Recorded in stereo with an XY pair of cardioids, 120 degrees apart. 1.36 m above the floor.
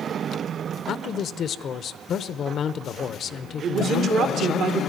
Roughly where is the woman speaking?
Ahead right.